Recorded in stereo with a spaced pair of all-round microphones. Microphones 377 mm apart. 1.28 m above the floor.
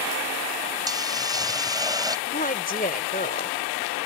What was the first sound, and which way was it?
A hiss, 10° right (ahead or behind).